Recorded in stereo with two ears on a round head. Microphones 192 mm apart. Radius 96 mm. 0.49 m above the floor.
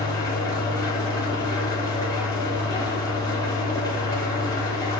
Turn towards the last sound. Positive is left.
turn(degrees=20)  # may be behind; listen again after turning